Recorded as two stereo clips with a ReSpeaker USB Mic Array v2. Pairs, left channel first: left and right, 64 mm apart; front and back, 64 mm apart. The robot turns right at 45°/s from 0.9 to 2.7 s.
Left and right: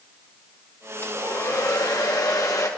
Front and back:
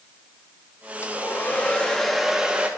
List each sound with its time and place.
1.0 s a hair dryer: 40° left, 1.2 m; by 2.7 s 115° left, 1.2 m